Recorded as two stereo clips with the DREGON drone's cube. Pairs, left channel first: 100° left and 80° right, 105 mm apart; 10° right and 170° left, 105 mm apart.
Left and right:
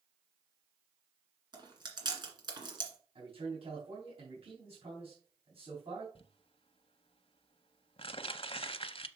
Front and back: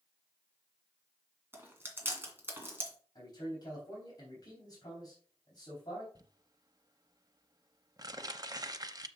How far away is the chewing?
About 2 m.